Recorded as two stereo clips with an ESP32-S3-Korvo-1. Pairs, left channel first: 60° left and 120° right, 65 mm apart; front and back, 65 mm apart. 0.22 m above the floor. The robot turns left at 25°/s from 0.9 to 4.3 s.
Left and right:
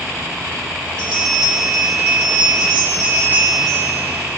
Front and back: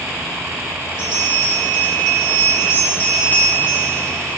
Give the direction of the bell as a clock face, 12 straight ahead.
1 o'clock.